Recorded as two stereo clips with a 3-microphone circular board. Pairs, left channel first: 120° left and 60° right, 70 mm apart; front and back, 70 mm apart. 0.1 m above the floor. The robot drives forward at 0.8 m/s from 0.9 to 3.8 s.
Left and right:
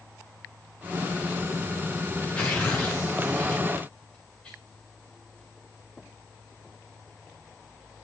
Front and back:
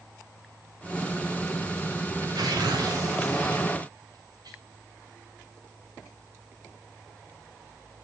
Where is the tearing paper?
165° right, 6 m.